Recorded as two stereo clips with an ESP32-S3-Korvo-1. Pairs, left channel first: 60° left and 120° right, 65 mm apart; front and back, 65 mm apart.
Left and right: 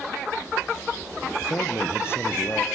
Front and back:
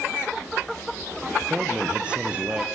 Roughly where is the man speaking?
Left.